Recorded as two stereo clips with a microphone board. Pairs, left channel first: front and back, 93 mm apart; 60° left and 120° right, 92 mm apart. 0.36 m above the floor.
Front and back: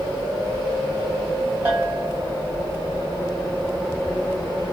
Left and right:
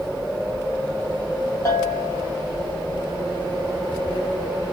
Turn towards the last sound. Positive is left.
turn(degrees=110)